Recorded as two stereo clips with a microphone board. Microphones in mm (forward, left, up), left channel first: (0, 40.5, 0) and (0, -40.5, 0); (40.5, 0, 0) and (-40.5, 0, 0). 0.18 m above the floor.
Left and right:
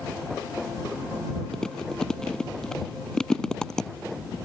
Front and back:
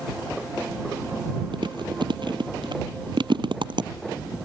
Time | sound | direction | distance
1.5 | chewing | 170° left | ?